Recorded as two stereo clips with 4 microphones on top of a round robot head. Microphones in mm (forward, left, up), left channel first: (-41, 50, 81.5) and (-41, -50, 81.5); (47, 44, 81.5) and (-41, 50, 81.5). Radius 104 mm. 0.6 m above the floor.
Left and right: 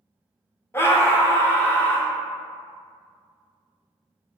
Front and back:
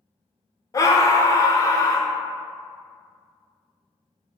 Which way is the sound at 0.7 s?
30° left.